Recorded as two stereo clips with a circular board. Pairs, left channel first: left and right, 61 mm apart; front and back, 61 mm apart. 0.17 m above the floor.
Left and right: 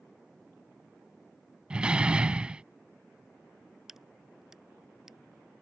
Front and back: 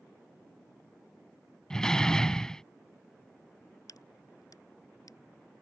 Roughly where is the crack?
Ahead.